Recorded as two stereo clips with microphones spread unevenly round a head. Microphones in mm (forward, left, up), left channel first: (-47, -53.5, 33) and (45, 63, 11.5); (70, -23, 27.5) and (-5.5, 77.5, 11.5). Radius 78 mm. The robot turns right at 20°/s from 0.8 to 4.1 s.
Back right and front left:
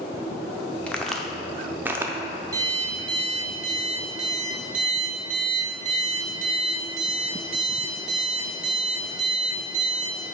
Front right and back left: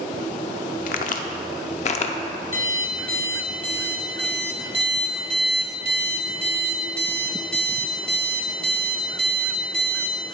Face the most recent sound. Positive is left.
turn(degrees=20)